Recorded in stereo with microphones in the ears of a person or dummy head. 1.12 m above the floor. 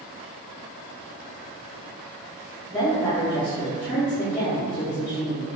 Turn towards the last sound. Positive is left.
turn(degrees=5)  # may be behind; listen again after turning